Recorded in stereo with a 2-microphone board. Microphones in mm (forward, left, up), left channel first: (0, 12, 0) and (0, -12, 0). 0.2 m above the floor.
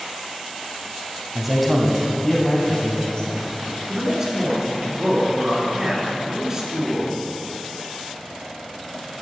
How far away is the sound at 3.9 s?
About 2.5 m.